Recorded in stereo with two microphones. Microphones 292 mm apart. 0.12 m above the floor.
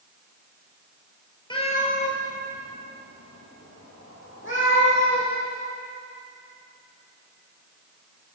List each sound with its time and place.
1.5 s a cat meowing: 15° left (ahead or behind), 1.4 m; by 5.3 s 40° left (ahead or behind), 4.5 m